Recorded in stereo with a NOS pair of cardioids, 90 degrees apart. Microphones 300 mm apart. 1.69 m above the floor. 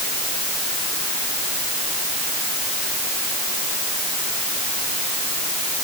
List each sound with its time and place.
Only background noise.